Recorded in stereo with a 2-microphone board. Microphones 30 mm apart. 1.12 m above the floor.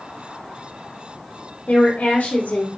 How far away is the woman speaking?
About 0.6 m.